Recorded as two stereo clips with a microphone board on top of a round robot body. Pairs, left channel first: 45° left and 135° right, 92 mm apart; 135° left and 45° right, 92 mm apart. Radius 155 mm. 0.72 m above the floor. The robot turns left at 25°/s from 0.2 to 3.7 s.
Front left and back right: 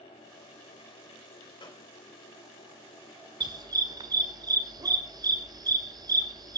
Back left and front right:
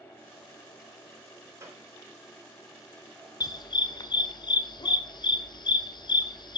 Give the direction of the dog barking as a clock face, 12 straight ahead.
6 o'clock.